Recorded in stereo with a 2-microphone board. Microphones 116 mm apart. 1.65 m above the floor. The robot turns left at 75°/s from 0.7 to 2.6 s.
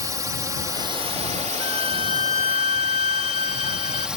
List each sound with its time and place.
0.0 s a drone: 30° right; by 4.2 s 175° right
1.6 s a violin: 40° right; by 4.1 s 115° right